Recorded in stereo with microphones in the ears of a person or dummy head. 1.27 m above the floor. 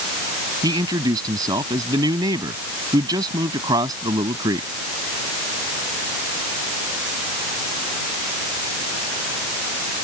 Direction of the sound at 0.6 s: 20° right (ahead or behind).